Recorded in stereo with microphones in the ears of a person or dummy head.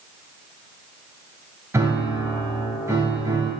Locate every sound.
1.7 s a piano: 10° right (ahead or behind), 2 m